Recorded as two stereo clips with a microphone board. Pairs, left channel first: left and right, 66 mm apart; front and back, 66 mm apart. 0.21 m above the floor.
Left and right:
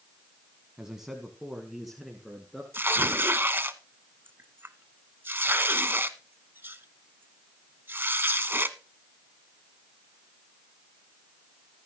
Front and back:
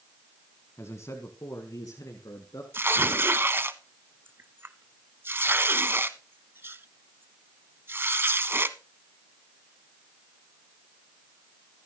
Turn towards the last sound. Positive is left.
turn(degrees=-135)